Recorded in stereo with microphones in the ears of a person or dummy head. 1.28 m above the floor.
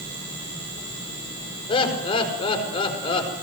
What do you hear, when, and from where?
1.7 s laughter: 30° left (ahead or behind), 5.5 m